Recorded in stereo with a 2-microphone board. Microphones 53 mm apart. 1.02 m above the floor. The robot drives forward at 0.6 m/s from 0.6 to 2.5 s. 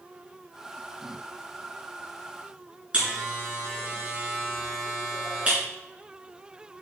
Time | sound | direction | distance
2.9 | a buzzer | 20° right (ahead or behind) | 3.5 m